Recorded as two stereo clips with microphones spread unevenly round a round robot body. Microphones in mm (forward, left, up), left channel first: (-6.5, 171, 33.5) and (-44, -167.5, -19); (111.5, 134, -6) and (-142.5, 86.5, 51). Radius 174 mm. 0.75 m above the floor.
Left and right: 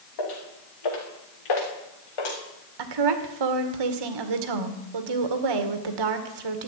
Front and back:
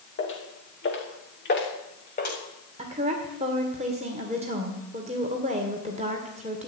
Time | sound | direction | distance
0.2 | footsteps | 55° left | 6 m
2.8 | a woman speaking | 95° right | 2 m